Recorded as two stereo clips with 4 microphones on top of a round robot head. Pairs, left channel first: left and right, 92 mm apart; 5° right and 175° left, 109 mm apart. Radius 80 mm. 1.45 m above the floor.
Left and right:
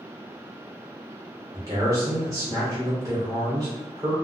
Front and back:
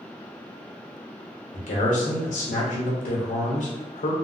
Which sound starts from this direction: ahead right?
A man speaking, at 1.5 s.